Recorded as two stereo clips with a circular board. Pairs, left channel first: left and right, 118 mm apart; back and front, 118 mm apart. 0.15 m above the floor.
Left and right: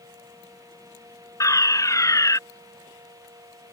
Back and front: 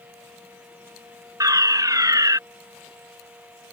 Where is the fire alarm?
45° left.